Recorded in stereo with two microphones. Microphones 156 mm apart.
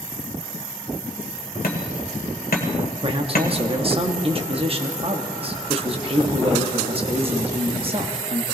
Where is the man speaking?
40° right (ahead or behind), 1.0 m.